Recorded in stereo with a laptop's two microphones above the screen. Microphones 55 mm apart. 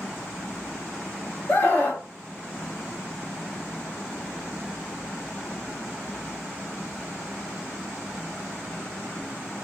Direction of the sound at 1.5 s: 35° left (ahead or behind).